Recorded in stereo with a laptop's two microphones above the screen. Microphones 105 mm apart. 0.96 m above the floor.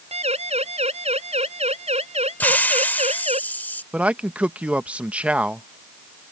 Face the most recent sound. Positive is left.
turn(degrees=-10)  # may be behind; listen again after turning